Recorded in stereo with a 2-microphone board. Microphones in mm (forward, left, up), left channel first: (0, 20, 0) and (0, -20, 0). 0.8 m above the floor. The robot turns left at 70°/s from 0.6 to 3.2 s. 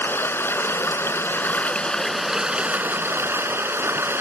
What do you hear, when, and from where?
0.0 s running water: 110° left; by 4.2 s 70° right